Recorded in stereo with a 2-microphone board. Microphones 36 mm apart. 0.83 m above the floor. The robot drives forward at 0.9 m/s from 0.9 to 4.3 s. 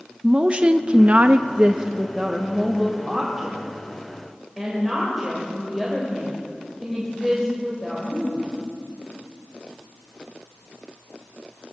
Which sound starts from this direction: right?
A woman speaking, at 0.2 s.